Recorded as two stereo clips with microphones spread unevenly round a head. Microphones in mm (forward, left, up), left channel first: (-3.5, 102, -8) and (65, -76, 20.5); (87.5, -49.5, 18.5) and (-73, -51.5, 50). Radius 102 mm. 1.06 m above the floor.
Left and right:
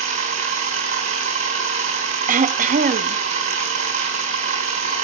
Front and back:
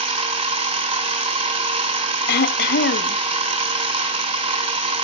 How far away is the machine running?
About 3.5 m.